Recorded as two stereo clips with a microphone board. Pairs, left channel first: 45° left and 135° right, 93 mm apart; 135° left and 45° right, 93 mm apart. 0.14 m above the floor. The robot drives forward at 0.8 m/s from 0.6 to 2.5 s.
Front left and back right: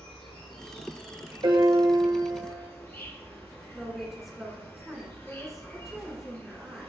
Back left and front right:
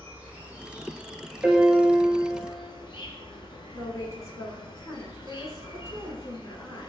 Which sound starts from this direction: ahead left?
An insect, at 0.0 s.